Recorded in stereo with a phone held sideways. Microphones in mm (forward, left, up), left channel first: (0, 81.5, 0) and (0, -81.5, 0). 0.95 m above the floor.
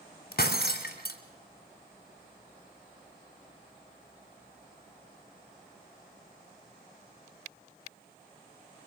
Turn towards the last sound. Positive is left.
turn(degrees=75)  # may be behind; listen again after turning